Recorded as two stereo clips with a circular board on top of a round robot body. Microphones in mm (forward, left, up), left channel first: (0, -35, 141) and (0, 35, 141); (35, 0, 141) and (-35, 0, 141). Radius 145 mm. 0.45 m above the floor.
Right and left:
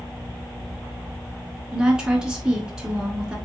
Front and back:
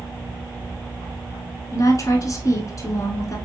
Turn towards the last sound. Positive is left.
turn(degrees=15)